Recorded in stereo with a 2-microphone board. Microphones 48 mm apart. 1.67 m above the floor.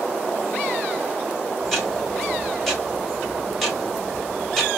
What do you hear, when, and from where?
1.6 s ticking: 5° left (ahead or behind), 1.3 m